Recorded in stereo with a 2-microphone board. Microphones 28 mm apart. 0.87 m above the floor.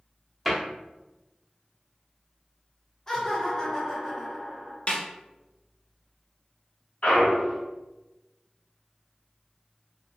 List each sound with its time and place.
0.5 s a cupboard door: centre (ahead or behind), 0.8 m
3.1 s laughter: 20° left (ahead or behind), 1.1 m
4.9 s a snare drum: 45° left (ahead or behind), 0.5 m
7.0 s a clunk: 50° left (ahead or behind), 1.1 m